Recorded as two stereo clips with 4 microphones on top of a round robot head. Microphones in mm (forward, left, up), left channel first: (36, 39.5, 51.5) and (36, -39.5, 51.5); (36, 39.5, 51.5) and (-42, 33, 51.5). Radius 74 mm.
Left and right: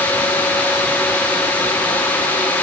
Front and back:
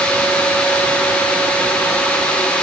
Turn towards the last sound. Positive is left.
No sound to turn to.